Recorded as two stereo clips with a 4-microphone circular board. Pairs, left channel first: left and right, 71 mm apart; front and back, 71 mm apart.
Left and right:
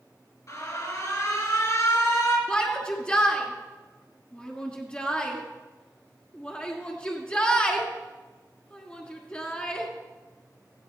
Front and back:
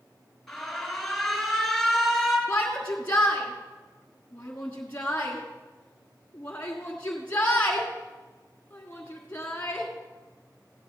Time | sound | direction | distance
0.5 | an alarm | 85° left | 3.5 m
2.5 | a shout | 40° left | 1.5 m